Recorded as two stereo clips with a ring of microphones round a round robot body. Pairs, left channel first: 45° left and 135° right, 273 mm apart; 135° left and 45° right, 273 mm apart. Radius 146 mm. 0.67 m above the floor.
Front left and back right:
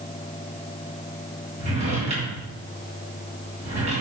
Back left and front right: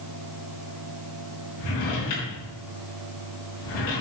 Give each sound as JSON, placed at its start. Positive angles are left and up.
{"t": 1.6, "sound": "a drawer", "azimuth_deg": 155, "distance_m": 4.5}